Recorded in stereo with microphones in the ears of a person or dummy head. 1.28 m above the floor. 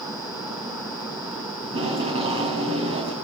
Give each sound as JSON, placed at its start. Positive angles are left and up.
{"t": 1.6, "sound": "tape being pulled", "side_deg": -35, "distance_m": 4.0}